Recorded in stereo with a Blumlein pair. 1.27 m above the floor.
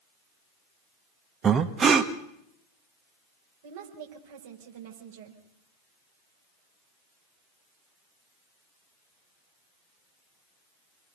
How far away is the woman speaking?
About 5.5 m.